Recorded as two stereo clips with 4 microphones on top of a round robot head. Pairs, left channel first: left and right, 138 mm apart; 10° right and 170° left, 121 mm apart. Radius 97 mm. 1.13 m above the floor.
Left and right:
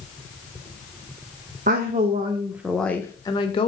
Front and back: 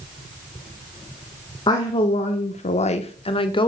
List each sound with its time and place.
1.7 s a woman speaking: 65° right, 1.4 m; by 3.7 s 35° left, 1.8 m